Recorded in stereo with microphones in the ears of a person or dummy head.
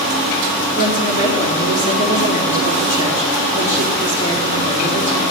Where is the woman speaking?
40° left (ahead or behind), 4.5 m.